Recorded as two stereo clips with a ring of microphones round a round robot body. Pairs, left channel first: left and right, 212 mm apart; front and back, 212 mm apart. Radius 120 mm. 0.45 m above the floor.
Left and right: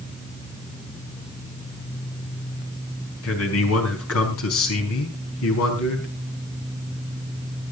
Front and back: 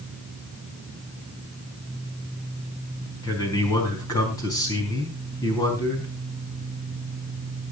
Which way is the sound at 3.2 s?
75° left.